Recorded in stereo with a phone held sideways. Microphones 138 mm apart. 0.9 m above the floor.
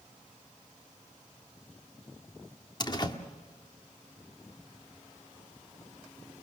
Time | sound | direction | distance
2.8 | a door slam | 30° left (ahead or behind) | 1.5 m